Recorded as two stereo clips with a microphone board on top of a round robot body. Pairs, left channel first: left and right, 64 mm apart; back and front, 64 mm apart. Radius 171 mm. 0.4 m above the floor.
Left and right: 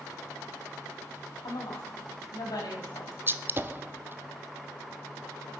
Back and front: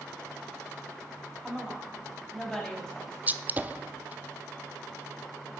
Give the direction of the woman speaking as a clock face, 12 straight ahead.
9 o'clock.